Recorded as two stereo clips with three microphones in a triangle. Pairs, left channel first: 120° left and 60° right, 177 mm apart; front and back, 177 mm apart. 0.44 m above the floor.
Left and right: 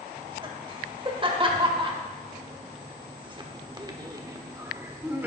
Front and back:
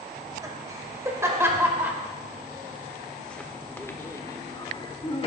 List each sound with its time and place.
0.2 s laughter: 115° right, 2.5 m; by 5.3 s 10° left, 1.4 m